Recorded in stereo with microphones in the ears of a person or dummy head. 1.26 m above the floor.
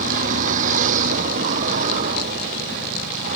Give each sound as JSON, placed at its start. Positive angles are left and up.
{"t": 0.0, "sound": "a vehicle", "side_deg": -45}